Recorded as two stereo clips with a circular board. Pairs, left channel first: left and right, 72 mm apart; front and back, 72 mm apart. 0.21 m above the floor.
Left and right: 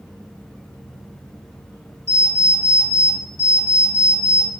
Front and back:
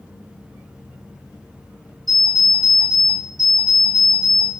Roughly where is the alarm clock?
Behind right.